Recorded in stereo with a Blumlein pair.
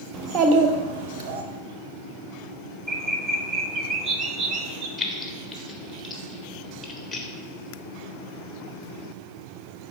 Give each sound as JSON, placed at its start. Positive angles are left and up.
{"t": 0.1, "sound": "a child speaking", "azimuth_deg": -25, "distance_m": 1.0}
{"t": 2.9, "sound": "a bird", "azimuth_deg": -20, "distance_m": 0.8}
{"t": 5.0, "sound": "keys jangling", "azimuth_deg": 10, "distance_m": 1.2}